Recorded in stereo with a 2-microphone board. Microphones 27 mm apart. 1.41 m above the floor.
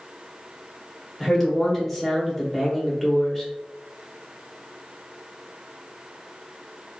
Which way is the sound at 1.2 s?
10° left (ahead or behind).